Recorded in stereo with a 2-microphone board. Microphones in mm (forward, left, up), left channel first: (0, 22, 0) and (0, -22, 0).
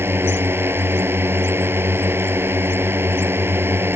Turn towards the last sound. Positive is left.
turn(degrees=-65)  # may be behind; listen again after turning